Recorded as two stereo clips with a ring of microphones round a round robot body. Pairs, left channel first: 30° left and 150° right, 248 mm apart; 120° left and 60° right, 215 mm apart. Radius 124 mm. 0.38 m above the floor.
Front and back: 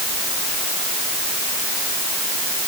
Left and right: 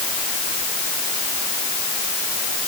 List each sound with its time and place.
Only background noise.